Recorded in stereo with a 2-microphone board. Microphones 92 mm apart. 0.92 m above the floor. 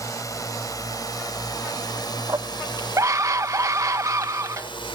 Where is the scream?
35° right (ahead or behind).